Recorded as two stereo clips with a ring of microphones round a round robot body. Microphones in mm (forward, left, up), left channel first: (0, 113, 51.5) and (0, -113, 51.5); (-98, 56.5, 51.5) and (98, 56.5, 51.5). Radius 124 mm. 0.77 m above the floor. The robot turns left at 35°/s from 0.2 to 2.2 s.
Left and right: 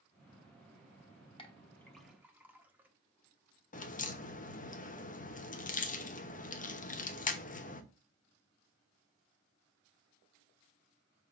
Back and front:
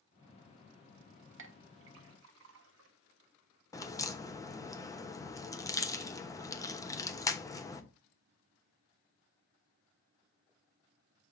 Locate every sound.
1.4 s a clink: 20° left, 1.1 m; by 2.9 s 5° right, 1.1 m
3.7 s a crack: 115° left, 1.0 m